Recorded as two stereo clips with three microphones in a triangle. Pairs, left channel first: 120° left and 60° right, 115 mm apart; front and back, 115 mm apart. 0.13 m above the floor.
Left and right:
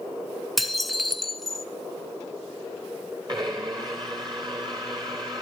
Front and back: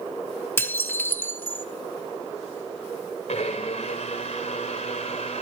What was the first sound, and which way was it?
Dishes clattering, 30° left.